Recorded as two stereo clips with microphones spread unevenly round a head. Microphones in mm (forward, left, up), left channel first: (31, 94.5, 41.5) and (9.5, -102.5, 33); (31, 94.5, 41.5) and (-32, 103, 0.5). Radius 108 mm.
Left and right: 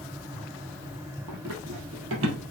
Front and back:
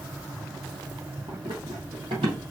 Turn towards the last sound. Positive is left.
turn(degrees=-130)